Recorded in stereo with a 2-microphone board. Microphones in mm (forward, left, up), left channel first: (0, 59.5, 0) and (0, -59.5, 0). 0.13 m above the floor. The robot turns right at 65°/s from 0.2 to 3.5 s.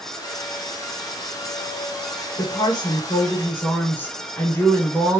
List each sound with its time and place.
2.4 s a woman speaking: 85° left, 1.7 m; by 5.2 s 160° left, 1.7 m